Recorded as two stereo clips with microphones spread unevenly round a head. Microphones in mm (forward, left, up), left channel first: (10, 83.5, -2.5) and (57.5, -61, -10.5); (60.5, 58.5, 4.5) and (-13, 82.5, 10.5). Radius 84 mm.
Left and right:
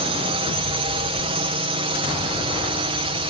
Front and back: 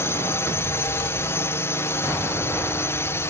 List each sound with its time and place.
0.0 s a drone: 50° right